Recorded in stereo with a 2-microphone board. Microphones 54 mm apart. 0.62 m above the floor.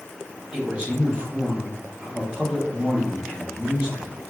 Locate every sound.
0.5 s a man speaking: 20° right (ahead or behind), 1.0 m